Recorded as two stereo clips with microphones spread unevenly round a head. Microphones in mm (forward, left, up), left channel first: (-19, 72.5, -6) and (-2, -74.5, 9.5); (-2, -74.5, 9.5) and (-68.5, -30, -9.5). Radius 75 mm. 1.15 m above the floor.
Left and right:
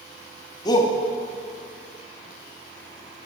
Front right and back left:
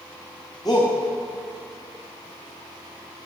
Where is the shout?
30° left, 1.8 m.